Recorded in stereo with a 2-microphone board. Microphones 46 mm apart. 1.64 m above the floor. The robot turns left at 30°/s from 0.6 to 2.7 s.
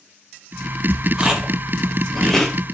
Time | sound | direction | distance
1.2 | chewing | 15° right (ahead or behind) | 0.5 m